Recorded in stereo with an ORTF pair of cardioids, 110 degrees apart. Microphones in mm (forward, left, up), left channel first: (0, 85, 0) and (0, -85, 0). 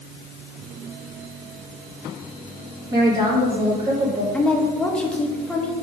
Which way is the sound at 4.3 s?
5° left.